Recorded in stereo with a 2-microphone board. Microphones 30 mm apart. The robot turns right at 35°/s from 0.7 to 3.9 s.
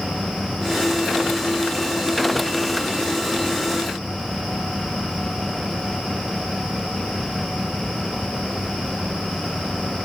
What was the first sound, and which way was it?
Only background noise.